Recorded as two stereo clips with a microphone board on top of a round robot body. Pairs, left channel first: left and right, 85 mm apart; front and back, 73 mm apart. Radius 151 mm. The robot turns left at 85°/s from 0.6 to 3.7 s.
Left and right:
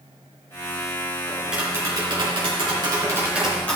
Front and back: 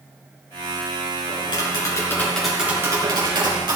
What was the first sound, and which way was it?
Tapping, 10° left.